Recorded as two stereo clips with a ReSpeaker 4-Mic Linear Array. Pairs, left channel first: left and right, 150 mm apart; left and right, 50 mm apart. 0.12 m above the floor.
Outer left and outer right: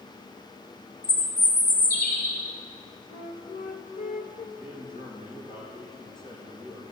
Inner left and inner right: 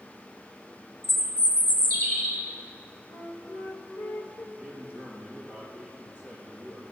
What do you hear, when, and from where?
1.0 s a bird: 85° left, 2.5 m
3.1 s a flute: 60° left (ahead or behind), 1.0 m
4.5 s a man speaking: 35° left (ahead or behind), 4.5 m